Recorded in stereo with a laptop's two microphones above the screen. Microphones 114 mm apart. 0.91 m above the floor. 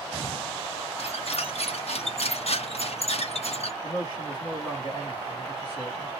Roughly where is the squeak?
Left.